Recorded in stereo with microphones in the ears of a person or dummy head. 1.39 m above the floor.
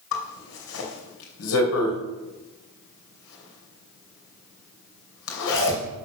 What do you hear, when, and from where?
0.1 s a zipper: 70° left (ahead or behind), 3 m